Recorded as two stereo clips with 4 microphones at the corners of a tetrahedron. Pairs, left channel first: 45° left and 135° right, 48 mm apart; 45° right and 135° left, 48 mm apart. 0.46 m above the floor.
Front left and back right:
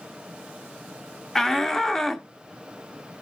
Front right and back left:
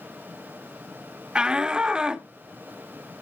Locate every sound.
1.4 s a shout: 105° left, 0.8 m